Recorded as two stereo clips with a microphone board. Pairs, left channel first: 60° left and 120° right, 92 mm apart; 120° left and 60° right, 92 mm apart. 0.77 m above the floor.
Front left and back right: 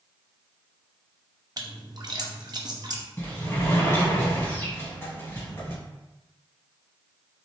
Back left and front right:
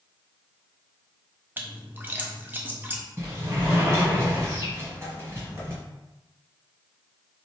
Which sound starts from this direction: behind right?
A splash, at 1.6 s.